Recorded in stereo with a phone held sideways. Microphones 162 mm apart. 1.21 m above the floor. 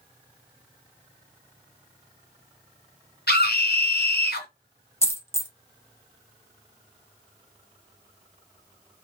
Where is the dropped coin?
15° left (ahead or behind), 0.6 m.